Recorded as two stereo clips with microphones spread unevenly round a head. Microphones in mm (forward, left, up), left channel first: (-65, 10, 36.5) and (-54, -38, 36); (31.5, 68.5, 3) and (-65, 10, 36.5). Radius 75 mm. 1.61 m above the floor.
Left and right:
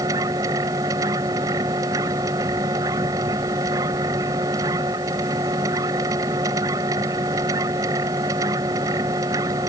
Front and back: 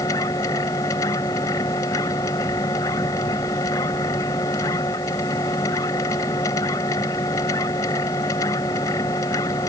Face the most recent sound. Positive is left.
turn(degrees=-40)